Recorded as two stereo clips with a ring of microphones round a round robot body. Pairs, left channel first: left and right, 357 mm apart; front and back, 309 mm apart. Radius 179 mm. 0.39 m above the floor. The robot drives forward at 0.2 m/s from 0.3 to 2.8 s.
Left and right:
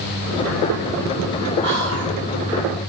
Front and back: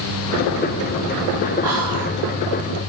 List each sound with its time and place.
1.6 s whispering: 120° left, 1.0 m; by 2.1 s 135° left, 1.0 m